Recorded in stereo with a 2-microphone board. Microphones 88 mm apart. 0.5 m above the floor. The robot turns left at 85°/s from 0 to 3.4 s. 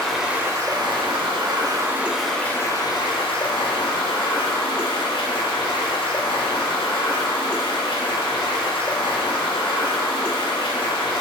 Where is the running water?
10° left, 0.9 m; by 11.2 s 80° left, 0.9 m.